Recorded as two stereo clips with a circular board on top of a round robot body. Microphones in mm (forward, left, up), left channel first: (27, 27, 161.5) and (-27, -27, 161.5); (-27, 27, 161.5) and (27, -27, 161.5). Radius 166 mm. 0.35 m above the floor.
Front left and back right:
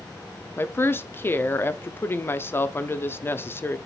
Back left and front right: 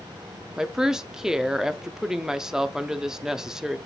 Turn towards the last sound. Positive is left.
turn(degrees=30)